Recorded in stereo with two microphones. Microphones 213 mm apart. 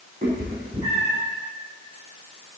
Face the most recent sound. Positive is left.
turn(degrees=-30)  # may be behind; listen again after turning